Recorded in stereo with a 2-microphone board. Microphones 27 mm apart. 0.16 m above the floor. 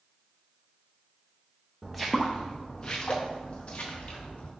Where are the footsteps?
5° right (ahead or behind), 0.7 m; by 4.5 s 60° left (ahead or behind), 1.7 m.